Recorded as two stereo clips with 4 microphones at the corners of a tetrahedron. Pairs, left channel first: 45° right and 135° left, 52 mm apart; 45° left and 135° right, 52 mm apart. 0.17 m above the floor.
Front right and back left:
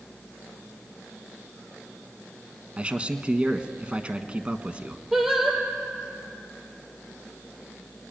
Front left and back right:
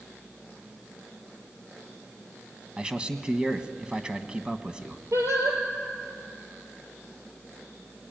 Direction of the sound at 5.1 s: 140° right.